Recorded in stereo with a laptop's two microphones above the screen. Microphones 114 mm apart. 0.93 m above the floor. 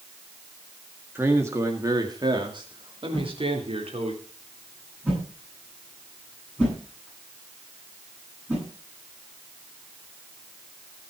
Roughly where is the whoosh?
Centre.